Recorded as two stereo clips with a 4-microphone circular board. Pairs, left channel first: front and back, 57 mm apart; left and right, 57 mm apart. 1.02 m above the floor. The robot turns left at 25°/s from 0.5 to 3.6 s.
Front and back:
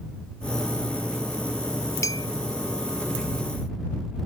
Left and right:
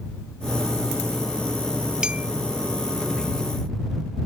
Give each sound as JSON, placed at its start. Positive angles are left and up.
{"t": 2.0, "sound": "a clink", "azimuth_deg": -15}